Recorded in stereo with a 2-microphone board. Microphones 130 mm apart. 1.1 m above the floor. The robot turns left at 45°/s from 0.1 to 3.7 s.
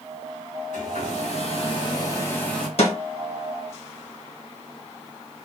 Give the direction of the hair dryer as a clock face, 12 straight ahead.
9 o'clock.